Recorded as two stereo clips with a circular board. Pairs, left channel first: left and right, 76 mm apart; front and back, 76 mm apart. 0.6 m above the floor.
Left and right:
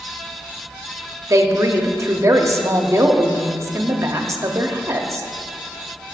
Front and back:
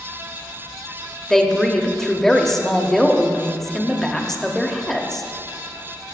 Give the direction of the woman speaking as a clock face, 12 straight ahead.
3 o'clock.